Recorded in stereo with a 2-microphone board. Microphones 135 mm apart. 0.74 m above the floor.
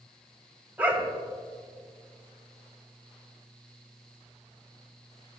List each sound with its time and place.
0.8 s a dog barking: 15° right (ahead or behind), 1.6 m